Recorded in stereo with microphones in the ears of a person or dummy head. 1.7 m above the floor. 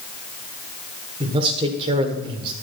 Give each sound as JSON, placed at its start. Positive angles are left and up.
{"t": 1.2, "sound": "a man speaking", "side_deg": -25, "distance_m": 1.4}